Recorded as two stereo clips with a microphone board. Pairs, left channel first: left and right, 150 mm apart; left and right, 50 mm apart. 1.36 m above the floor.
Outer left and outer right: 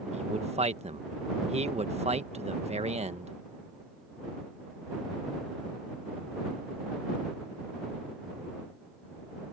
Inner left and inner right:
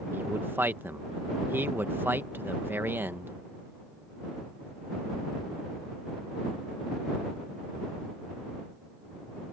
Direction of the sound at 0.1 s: 45° right (ahead or behind).